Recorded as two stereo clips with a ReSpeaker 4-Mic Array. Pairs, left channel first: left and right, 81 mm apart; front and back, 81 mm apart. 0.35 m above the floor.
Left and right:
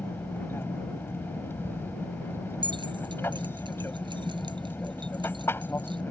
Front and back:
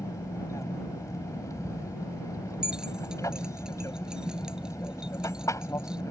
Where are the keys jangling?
100° right.